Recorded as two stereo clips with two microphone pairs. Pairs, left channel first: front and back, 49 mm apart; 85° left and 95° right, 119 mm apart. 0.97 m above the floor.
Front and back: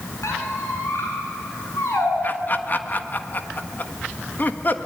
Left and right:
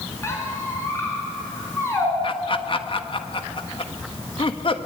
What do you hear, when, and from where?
0.2 s a squeak: 15° left, 7 m
2.2 s laughter: 45° left, 1.5 m